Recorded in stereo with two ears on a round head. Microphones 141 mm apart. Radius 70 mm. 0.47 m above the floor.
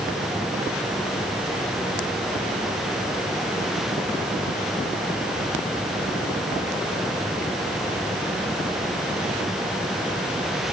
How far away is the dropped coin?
No dropped coin in this recording.